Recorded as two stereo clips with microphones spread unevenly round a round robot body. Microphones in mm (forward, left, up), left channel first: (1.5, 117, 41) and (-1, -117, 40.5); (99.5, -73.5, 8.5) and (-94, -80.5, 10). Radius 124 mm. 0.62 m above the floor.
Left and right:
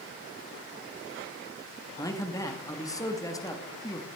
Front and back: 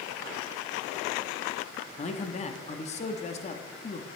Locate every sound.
2.0 s a man speaking: 25° left, 1.0 m